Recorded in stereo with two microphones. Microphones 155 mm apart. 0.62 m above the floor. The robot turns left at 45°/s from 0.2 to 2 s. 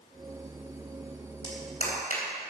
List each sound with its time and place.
1.4 s a clap: 25° left (ahead or behind), 3 m; by 2.2 s 50° left (ahead or behind), 3 m